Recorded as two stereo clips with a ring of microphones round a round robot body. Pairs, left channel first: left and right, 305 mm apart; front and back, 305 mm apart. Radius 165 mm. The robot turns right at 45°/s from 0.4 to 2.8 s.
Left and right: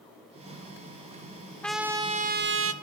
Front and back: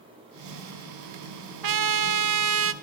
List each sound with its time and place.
1.6 s a trumpet: 175° left, 1.1 m; by 2.7 s 135° right, 1.1 m